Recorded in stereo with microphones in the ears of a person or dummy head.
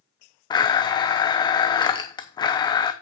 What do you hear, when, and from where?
0.5 s a blender: 30° left (ahead or behind), 0.8 m